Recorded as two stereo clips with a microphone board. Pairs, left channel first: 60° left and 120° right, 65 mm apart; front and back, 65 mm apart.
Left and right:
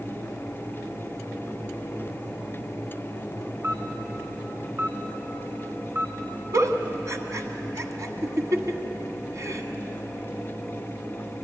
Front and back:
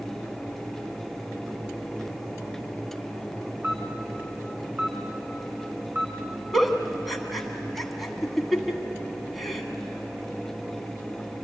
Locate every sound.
3.6 s a camera shutter: 140° right, 1.7 m
6.5 s a giggle: 90° right, 1.4 m